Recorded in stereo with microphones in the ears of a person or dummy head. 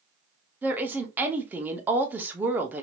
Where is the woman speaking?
15° right (ahead or behind), 0.8 m.